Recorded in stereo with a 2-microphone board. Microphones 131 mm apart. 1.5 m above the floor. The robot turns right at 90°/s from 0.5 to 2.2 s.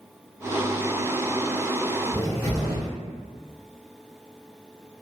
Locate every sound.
2.1 s a cupboard door: 20° left (ahead or behind), 1.4 m